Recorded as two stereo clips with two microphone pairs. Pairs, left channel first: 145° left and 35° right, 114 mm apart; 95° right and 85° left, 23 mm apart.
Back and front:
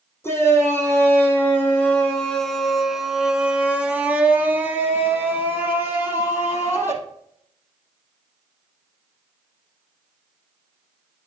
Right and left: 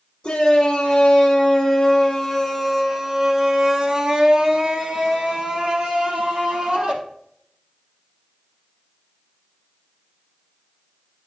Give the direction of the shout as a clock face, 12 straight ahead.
5 o'clock.